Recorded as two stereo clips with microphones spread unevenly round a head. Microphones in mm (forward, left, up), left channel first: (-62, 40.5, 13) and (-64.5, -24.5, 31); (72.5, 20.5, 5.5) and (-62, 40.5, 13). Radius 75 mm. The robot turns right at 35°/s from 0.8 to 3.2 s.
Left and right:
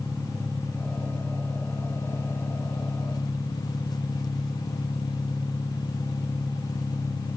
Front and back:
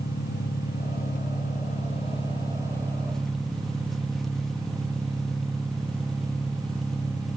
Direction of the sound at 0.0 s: 5° right.